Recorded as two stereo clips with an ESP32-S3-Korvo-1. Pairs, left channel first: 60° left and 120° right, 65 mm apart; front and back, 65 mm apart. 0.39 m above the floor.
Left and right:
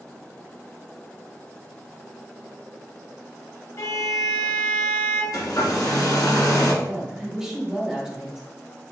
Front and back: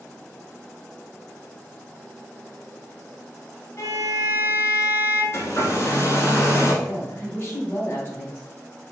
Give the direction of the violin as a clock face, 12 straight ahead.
11 o'clock.